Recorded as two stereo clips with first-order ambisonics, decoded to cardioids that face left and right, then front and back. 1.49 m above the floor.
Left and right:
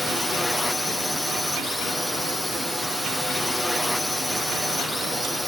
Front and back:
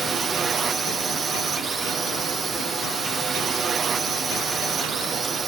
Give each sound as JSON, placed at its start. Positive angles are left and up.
{"t": 0.0, "sound": "a drone", "azimuth_deg": 165}